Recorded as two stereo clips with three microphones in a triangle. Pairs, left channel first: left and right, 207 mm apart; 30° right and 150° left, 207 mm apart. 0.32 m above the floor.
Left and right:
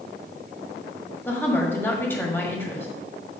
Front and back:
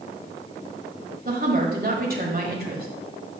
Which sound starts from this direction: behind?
A woman speaking, at 1.2 s.